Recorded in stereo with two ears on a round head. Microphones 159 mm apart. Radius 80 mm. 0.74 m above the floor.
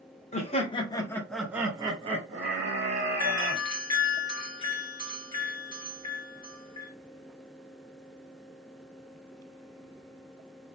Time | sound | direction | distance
0.3 | laughter | 35° left (ahead or behind) | 0.8 m
3.2 | a doorbell | 25° left (ahead or behind) | 1.9 m